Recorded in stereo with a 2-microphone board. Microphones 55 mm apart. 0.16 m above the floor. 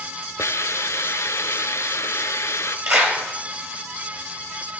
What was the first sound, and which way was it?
A hiss, 65° left (ahead or behind).